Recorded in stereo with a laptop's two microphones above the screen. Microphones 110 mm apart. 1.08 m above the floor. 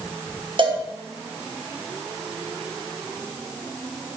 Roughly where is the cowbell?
Right.